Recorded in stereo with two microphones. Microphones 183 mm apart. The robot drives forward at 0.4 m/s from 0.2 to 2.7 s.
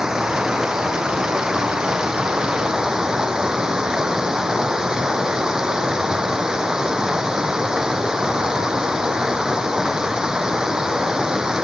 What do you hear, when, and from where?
0.0 s running water: 5° right (ahead or behind)